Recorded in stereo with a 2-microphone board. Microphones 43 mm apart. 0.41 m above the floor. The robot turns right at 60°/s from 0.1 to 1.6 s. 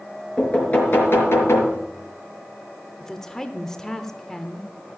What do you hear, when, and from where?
0.4 s knocking: 15° left, 4.5 m; by 1.8 s 85° left, 4.5 m
3.0 s a woman speaking: 15° left (ahead or behind), 0.8 m